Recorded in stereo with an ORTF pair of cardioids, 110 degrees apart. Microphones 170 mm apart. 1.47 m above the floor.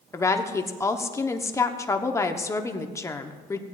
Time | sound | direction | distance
0.1 | a woman speaking | 20° left | 1.0 m